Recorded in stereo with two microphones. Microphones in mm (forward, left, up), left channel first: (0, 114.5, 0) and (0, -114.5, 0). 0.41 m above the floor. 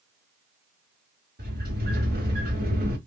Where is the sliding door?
45° right (ahead or behind), 2.5 m.